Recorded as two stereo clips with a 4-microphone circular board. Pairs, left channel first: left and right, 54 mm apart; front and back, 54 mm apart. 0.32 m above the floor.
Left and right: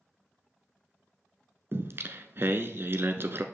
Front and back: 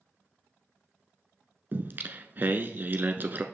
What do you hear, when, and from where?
1.7 s singing: 130° right, 0.8 m